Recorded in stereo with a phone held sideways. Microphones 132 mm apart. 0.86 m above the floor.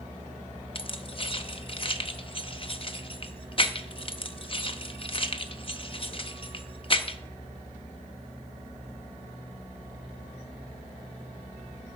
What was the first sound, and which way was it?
Keys jangling, 40° left (ahead or behind).